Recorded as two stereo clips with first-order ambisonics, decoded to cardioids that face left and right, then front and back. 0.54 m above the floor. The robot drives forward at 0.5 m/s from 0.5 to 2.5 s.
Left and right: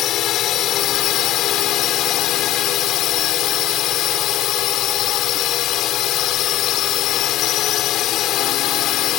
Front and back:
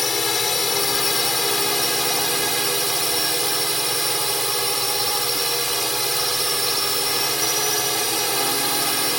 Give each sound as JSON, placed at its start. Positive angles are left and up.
{"t": 0.0, "sound": "a drone", "azimuth_deg": 65}